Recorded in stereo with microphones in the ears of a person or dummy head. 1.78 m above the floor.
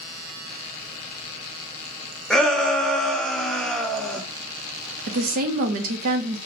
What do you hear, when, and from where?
2.3 s a shout: 5° left (ahead or behind), 0.6 m
5.1 s a woman speaking: 50° right (ahead or behind), 0.6 m